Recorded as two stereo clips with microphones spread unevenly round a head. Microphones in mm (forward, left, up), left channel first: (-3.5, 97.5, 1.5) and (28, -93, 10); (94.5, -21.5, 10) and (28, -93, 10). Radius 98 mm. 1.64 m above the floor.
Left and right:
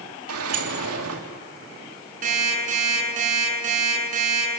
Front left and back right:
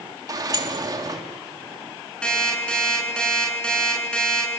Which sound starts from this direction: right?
A sliding door, at 0.3 s.